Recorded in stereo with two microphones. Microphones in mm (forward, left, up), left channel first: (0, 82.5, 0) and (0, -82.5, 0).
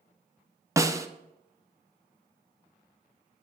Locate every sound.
0.8 s a snare drum: 20° right (ahead or behind), 0.7 m